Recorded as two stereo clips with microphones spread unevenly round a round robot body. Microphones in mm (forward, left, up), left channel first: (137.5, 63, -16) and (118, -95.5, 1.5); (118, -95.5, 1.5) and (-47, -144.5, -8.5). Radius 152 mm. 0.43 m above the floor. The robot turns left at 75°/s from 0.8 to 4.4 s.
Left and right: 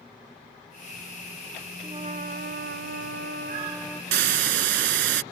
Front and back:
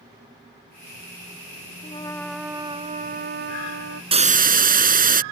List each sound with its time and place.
1.8 s a trumpet: 35° right; by 4.0 s 160° left
4.1 s a hiss: 105° right; by 5.2 s 125° right